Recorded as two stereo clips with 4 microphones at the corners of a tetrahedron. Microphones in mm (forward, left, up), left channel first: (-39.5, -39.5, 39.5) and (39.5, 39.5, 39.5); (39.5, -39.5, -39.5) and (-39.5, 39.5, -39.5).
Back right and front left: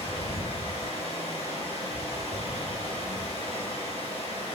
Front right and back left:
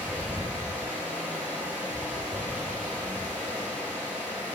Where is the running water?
120° right, 2.5 m.